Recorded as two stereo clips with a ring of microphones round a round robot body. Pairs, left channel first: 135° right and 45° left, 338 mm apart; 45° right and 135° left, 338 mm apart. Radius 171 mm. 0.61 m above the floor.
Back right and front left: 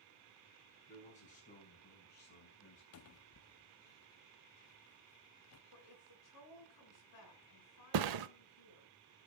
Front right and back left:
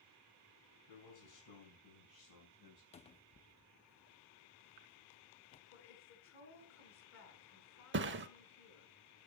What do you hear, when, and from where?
0.9 s a man speaking: 65° right, 6.5 m; by 2.8 s 80° right, 4.5 m
2.9 s a cupboard door: 110° right, 0.6 m
5.7 s a woman speaking: 100° right, 6.5 m
7.9 s a thud: 75° left, 0.7 m